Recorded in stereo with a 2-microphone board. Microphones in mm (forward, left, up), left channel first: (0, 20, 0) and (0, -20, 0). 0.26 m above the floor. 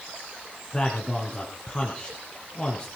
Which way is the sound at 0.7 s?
25° left (ahead or behind).